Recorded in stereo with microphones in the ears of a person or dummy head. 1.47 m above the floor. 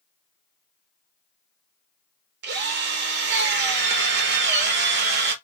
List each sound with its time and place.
2.4 s a drill: 50° right (ahead or behind), 0.6 m